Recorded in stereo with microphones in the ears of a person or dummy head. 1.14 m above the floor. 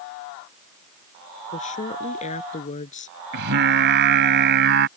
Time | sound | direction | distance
1.5 | a woman speaking | 40° left (ahead or behind) | ?
3.3 | singing | 60° right (ahead or behind) | ?